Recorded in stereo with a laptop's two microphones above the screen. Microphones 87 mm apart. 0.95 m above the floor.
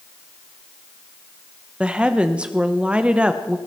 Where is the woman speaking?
15° right (ahead or behind), 0.8 m.